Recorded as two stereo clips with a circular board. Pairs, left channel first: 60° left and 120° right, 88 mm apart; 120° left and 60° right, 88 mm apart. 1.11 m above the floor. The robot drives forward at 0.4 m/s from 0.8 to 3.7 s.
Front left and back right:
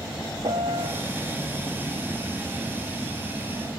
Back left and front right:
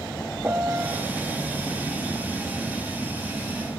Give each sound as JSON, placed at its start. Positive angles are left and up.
{"t": 0.4, "sound": "a piano", "azimuth_deg": -125}